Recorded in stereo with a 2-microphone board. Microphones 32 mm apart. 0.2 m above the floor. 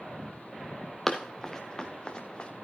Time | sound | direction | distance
1.1 | running footsteps | 10° left (ahead or behind) | 1.4 m